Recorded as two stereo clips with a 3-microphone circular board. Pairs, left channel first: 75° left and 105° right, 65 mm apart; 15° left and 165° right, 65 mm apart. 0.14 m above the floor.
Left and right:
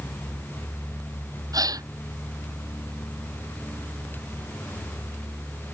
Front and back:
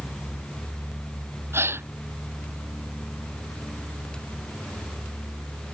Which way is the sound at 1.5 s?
115° right.